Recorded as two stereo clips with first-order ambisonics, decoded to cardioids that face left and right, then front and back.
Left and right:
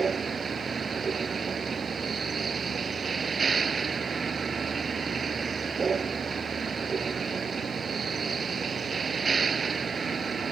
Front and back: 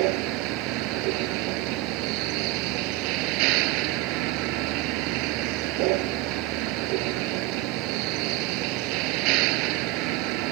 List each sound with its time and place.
0.0 s a vehicle: 160° right